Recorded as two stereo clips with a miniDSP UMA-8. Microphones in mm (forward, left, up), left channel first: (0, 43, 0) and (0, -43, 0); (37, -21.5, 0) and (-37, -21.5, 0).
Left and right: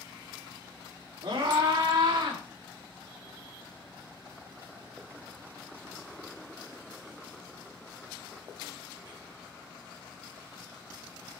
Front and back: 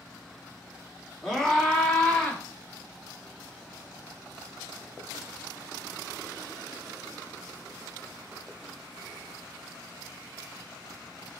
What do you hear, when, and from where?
1.2 s a scream: 85° right, 3 m; by 2.4 s 75° right, 3.5 m